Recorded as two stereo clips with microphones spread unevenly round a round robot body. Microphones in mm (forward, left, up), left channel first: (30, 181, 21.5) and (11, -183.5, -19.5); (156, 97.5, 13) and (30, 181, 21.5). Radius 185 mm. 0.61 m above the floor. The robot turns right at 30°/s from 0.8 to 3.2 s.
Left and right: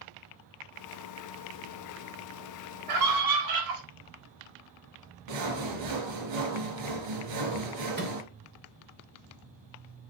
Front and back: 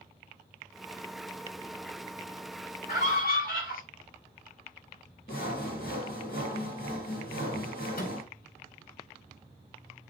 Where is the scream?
80° right, 3.5 m; by 3.8 s 70° right, 3.5 m.